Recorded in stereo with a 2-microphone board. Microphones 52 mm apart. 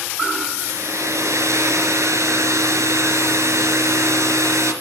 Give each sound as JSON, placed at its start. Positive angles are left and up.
{"t": 0.6, "sound": "a hair dryer", "side_deg": -70, "distance_m": 3.0}